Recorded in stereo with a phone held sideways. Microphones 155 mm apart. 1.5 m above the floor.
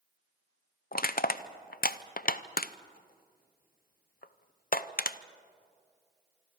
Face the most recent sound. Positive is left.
turn(degrees=70)  # may be behind; listen again after turning